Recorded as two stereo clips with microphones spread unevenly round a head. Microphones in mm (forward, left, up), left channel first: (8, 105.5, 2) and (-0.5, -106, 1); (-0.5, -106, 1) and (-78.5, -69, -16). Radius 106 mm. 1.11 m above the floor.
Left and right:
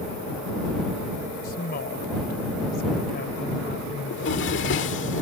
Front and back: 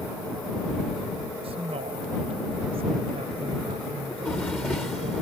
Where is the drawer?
55° left.